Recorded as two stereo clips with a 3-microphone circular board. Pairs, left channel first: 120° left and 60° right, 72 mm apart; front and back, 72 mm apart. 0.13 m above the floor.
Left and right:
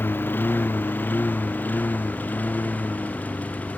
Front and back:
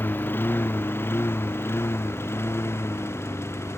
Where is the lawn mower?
60° left; by 3.8 s 55° left.